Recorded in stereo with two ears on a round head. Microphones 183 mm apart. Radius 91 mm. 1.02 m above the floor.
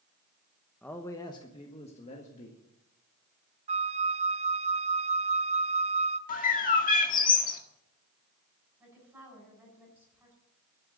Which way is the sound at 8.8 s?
10° right (ahead or behind).